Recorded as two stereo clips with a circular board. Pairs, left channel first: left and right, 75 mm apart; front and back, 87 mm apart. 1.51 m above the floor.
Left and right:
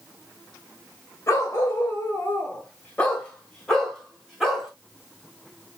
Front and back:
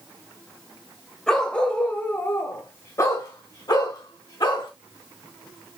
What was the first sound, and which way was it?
A dog barking, 80° left.